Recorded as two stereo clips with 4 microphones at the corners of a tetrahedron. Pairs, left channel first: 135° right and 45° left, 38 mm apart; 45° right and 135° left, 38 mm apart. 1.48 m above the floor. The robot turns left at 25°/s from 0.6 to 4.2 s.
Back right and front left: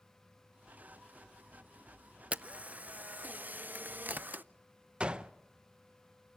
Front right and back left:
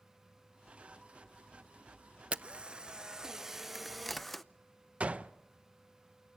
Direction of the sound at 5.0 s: 100° left.